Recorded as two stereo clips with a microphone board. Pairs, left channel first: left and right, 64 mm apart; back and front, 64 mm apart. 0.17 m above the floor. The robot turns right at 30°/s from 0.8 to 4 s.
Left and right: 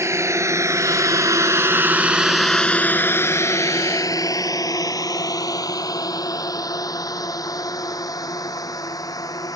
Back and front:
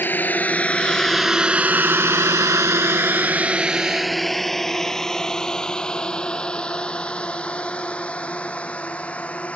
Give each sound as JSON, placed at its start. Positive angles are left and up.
{"t": 0.0, "sound": "a drone", "azimuth_deg": -125}